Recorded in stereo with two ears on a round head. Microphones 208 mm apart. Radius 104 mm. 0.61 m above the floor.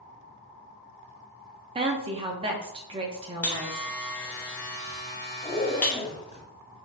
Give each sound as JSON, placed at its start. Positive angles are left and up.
{"t": 1.8, "sound": "a woman speaking", "side_deg": -25, "distance_m": 0.6}
{"t": 3.4, "sound": "a buzzer", "side_deg": 10, "distance_m": 0.9}
{"t": 5.4, "sound": "a zipper", "side_deg": 20, "distance_m": 1.0}